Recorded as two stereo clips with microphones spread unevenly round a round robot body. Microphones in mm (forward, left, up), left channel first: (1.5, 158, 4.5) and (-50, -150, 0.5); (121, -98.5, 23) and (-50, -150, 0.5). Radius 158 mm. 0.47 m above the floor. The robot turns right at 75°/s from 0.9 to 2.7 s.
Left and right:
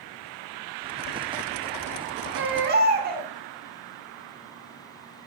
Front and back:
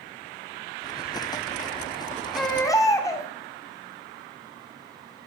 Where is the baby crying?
85° right, 1.1 m; by 3.3 s 55° right, 1.1 m.